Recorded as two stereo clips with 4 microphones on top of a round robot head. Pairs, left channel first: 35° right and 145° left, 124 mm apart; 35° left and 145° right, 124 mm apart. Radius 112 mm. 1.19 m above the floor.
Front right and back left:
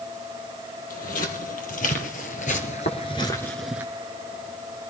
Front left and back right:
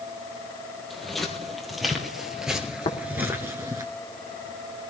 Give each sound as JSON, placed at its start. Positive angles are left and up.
{"t": 0.9, "sound": "footsteps", "azimuth_deg": -50, "distance_m": 3.0}
{"t": 2.9, "sound": "tapping", "azimuth_deg": -15, "distance_m": 1.9}